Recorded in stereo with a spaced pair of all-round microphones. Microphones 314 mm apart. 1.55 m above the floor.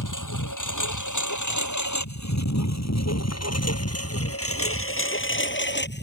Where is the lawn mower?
65° left (ahead or behind); by 6.0 s 30° left (ahead or behind).